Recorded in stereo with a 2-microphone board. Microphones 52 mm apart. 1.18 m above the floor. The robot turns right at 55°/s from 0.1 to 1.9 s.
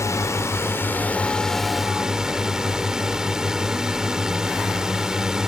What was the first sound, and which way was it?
A drone, 95° left.